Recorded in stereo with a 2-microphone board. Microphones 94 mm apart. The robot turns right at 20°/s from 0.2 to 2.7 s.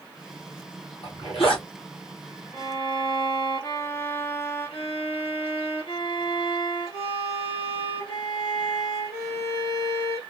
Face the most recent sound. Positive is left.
turn(degrees=75)  # may be behind; listen again after turning